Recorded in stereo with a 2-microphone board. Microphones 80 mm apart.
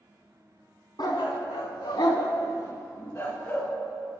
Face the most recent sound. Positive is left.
turn(degrees=25)  # may be behind; listen again after turning